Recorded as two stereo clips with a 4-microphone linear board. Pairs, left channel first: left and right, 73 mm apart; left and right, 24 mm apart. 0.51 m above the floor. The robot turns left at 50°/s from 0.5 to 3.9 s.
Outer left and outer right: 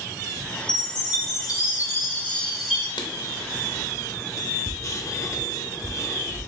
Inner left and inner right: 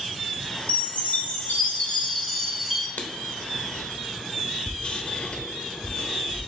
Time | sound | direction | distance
0.7 | a chime | 95° left | 1.9 m
3.0 | writing | 75° left (ahead or behind) | 0.6 m